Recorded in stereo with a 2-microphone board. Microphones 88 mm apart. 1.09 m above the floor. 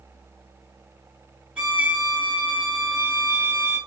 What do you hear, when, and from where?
1.6 s a violin: 15° right (ahead or behind), 2 m